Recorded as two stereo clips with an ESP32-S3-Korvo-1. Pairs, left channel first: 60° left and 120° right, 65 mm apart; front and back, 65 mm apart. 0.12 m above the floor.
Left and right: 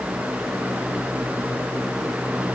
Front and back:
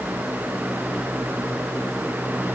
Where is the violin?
I don't hear a violin.